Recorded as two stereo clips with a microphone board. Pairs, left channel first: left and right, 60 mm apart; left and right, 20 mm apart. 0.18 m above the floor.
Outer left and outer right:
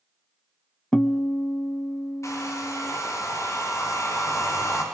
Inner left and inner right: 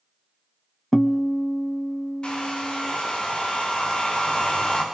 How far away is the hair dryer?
About 9.5 m.